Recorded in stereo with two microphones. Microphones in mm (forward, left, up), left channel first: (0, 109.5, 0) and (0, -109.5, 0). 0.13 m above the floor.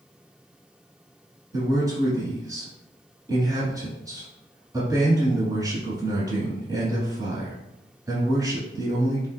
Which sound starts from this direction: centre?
A man speaking, at 1.5 s.